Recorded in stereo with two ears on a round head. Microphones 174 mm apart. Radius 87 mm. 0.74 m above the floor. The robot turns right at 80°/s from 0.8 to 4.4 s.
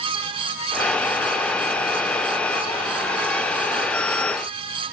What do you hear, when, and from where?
Only background noise.